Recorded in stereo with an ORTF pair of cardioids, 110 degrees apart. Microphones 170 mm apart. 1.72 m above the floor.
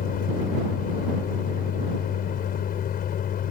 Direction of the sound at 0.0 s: 60° left.